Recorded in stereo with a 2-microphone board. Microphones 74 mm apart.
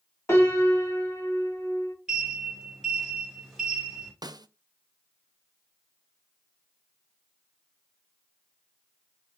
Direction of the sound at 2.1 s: 5° right (ahead or behind).